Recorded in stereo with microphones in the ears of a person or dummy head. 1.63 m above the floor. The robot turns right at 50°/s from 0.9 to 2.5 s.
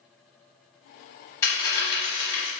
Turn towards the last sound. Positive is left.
turn(degrees=80)